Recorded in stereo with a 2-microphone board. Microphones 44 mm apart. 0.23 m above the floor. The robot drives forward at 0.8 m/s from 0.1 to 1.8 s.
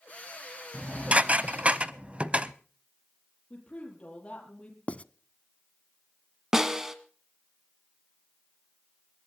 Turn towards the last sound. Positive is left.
turn(degrees=-15)  # may be behind; listen again after turning